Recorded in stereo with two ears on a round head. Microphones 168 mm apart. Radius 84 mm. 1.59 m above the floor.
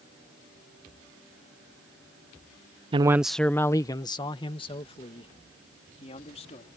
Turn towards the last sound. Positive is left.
turn(degrees=35)  # may be behind; listen again after turning